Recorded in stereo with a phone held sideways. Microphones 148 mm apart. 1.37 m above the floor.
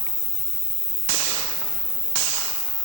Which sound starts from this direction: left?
An insect, at 0.0 s.